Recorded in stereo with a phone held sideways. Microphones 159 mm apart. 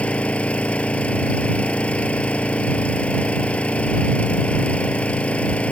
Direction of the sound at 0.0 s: 5° left (ahead or behind).